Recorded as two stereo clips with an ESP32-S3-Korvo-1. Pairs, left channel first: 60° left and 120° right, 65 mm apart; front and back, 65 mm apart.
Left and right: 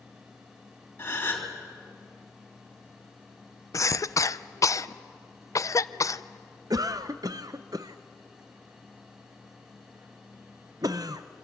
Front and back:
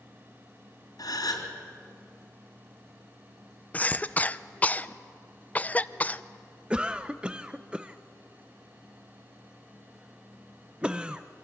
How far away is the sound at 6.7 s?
About 0.5 m.